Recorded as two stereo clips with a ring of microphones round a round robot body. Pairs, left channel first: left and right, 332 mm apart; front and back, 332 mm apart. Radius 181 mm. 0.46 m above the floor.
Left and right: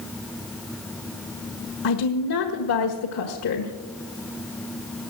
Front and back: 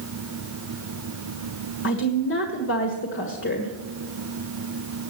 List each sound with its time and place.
1.8 s a woman speaking: 50° left, 1.5 m